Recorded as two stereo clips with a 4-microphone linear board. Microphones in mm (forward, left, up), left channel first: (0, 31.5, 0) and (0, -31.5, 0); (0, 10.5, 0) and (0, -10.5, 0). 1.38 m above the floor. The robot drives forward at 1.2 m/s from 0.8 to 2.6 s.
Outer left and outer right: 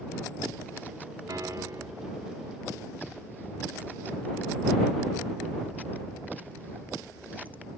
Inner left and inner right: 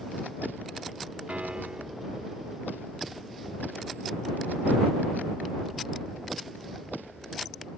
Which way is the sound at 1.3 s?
75° right (ahead or behind).